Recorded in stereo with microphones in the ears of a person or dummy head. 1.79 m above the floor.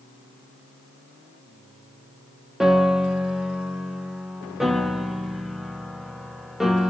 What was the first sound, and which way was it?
A piano, centre (ahead or behind).